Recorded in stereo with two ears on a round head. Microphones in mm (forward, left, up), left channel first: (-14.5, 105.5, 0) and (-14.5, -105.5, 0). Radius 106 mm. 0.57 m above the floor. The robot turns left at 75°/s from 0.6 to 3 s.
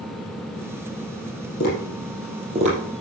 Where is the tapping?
50° left (ahead or behind), 5 m; by 2.8 s 40° right (ahead or behind), 5 m.